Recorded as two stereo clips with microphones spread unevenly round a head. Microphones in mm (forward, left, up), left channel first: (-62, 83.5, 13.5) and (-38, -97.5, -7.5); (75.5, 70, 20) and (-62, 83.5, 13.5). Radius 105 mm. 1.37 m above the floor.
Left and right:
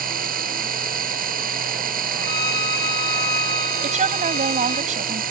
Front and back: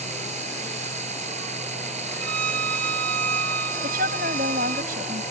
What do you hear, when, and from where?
0.0 s a machine running: 125° right
2.2 s a violin: 165° left
3.8 s a woman speaking: 135° right